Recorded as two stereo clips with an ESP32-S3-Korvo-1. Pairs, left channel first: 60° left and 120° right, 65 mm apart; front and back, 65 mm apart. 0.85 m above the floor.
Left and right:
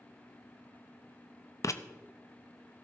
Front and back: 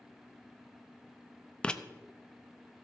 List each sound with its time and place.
1.6 s writing: 70° left, 0.5 m